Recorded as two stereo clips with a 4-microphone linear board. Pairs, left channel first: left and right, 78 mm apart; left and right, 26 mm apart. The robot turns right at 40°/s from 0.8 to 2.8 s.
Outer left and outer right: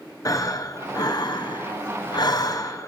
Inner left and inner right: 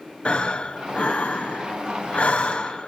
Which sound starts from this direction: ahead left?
Breathing, at 0.2 s.